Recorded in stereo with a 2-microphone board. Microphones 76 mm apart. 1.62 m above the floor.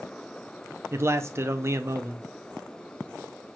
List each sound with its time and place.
0.9 s a man speaking: 35° right (ahead or behind), 0.5 m